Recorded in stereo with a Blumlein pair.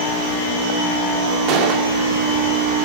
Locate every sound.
1.5 s a gunshot: 40° right, 2 m